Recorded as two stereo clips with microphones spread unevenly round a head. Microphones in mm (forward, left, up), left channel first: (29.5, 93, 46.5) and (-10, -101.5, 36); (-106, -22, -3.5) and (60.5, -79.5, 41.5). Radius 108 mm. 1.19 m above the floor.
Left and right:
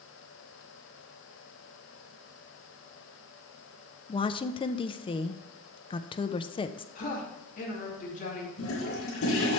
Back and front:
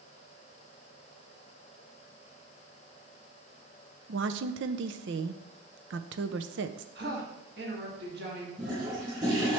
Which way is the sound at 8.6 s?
55° left.